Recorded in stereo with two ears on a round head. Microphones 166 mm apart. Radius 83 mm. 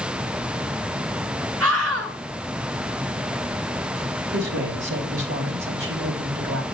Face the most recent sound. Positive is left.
turn(degrees=-70)  # may be behind; listen again after turning